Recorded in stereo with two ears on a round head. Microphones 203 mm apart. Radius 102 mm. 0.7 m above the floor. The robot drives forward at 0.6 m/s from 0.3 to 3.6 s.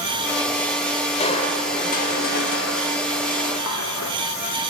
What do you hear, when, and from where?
1.2 s crushing: 30° left (ahead or behind), 1.6 m; by 4.1 s 75° left (ahead or behind), 0.8 m